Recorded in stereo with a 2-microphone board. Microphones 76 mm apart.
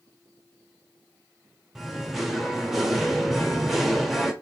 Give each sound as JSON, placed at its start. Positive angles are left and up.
{"t": 1.8, "sound": "singing", "side_deg": -5, "distance_m": 0.9}